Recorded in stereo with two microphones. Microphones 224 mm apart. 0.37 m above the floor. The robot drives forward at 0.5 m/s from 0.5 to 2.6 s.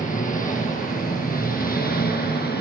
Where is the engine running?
35° left (ahead or behind), 5.5 m; by 2.6 s 45° left (ahead or behind), 4.5 m.